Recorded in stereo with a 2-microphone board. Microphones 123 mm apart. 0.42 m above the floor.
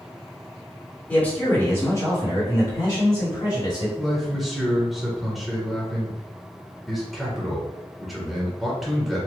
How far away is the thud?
I don't hear a thud.